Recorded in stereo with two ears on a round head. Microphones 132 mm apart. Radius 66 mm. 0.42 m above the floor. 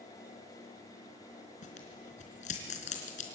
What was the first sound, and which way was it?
Tearing paper, 55° left (ahead or behind).